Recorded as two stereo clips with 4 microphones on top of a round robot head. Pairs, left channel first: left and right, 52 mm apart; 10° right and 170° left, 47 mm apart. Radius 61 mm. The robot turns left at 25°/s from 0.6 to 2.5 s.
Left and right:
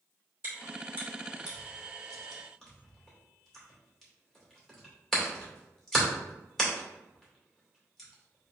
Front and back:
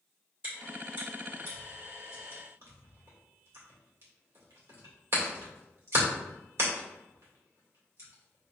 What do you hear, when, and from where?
0.4 s chewing: 140° right, 2 m; by 8.5 s 170° left, 2 m